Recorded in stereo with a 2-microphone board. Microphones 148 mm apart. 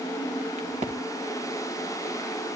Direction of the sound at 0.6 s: 55° right (ahead or behind).